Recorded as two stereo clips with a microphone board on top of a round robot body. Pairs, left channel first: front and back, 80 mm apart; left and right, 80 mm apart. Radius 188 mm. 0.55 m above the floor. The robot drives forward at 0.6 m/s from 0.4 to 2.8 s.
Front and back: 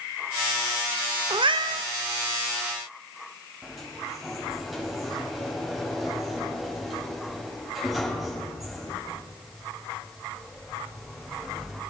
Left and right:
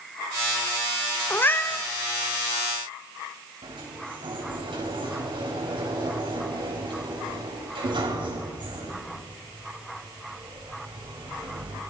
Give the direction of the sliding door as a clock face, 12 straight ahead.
3 o'clock.